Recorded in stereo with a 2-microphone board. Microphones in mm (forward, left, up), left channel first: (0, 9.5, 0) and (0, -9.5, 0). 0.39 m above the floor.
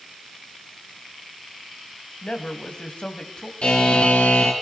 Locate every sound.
2.2 s a man speaking: 65° left (ahead or behind), 2.5 m
3.6 s a buzzer: 65° left (ahead or behind), 4 m